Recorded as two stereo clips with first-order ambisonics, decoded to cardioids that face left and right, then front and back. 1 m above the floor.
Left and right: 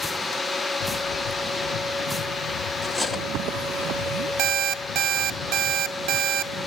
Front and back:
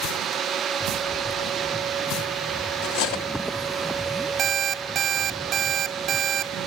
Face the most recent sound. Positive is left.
turn(degrees=-120)